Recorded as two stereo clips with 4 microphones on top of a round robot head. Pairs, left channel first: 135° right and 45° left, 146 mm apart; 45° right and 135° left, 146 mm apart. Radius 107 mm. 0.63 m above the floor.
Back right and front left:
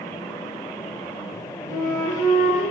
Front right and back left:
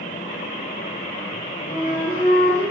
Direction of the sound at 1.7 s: 100° right.